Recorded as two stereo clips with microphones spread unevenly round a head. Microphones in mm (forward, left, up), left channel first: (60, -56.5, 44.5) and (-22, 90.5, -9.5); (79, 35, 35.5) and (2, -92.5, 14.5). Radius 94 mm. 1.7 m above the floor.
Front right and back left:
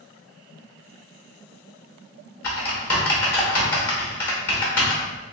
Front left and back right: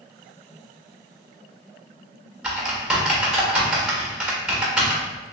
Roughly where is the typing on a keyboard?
Ahead right.